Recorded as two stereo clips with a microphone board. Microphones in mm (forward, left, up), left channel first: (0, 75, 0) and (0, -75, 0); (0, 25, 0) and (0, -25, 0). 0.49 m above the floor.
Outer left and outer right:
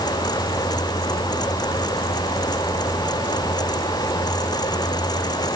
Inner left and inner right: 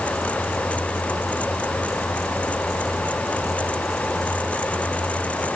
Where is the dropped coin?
No dropped coin in this recording.